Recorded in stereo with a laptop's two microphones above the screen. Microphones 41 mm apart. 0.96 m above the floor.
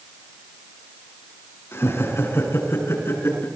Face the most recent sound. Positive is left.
turn(degrees=75)  # may be behind; listen again after turning